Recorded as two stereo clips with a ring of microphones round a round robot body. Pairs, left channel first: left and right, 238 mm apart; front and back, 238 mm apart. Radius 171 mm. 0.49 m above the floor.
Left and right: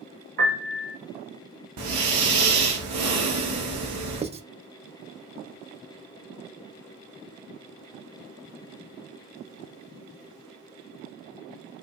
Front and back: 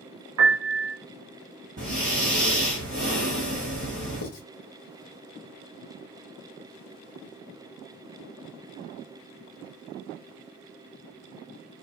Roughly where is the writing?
Ahead.